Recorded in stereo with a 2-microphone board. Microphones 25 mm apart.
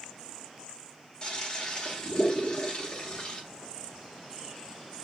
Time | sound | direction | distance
1.2 | a toilet flushing | 40° left (ahead or behind) | 1.9 m